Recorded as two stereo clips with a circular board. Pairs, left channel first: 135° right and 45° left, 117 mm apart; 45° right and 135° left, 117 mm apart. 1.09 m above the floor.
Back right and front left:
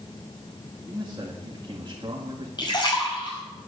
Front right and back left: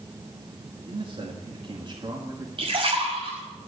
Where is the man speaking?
110° left, 2 m; by 2.5 s 85° left, 2 m.